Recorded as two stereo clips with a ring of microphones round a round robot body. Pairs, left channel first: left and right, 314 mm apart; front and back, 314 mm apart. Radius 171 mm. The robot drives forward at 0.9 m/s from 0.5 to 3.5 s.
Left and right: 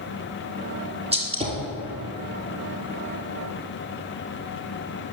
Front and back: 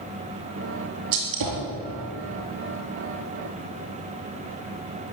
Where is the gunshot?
160° right, 4 m; by 1.7 s 165° right, 4.5 m.